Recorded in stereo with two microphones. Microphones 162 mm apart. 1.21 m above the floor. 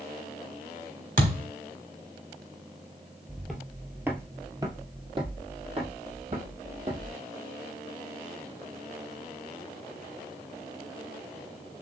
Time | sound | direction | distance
1.2 | a thud | 55° right (ahead or behind) | 1.6 m
3.3 | footsteps | 5° left (ahead or behind) | 1.4 m